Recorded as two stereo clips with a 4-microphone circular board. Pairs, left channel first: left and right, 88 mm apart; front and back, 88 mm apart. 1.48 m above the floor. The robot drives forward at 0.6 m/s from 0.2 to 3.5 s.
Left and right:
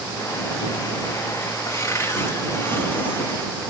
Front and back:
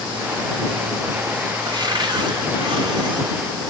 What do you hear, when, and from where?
1.6 s a cupboard door: 145° left, 2 m; by 3.3 s 155° left, 3 m